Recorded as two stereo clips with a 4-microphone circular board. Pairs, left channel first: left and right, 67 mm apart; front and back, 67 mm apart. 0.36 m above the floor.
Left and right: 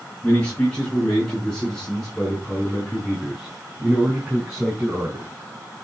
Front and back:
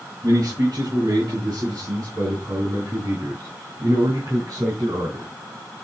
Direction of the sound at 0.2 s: 165° left.